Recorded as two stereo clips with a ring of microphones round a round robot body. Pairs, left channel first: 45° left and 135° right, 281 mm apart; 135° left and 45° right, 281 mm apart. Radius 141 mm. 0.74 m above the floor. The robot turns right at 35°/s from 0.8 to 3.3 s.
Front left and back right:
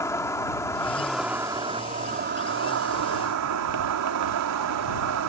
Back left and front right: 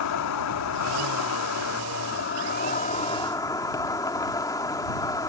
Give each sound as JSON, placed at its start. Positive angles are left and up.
{"t": 0.0, "sound": "an insect", "azimuth_deg": 125}